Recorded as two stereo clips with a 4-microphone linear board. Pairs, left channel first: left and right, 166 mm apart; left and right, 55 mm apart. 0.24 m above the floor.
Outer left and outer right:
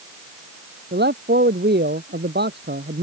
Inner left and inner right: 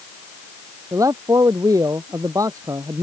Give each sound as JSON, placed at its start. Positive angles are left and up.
{"t": 0.9, "sound": "a man speaking", "side_deg": -75}